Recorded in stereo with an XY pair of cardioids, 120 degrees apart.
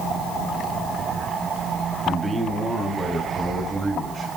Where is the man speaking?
10° right, 2.5 m; by 4.4 s 25° right, 5 m.